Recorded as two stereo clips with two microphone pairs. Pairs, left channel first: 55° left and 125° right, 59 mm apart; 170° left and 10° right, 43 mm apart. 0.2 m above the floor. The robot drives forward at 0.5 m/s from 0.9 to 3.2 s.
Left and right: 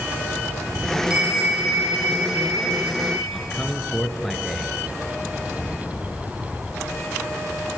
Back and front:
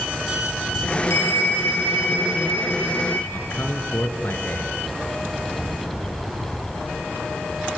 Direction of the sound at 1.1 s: 165° left.